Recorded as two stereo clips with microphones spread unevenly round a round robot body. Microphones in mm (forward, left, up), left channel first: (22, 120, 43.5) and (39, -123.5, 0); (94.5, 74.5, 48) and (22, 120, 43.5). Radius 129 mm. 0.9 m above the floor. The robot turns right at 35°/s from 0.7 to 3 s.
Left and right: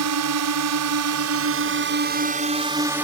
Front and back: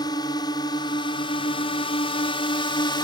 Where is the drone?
85° right; by 3.0 s 5° right.